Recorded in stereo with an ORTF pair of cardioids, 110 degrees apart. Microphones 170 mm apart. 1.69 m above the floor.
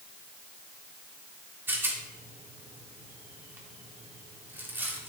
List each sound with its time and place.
1.7 s a rattle: 10° right, 3 m